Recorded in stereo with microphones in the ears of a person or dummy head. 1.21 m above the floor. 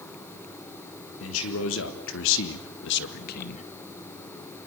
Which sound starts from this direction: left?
A man speaking, at 1.2 s.